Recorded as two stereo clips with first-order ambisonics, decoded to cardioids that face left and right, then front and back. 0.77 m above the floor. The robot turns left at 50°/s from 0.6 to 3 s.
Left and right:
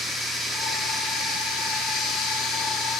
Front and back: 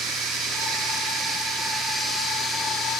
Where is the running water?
170° left, 1.1 m; by 3.0 s 50° left, 1.1 m.